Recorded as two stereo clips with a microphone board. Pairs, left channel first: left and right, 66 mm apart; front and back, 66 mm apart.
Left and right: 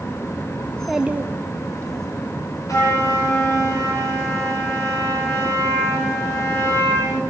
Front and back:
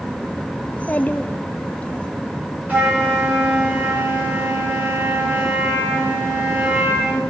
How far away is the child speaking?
About 0.6 m.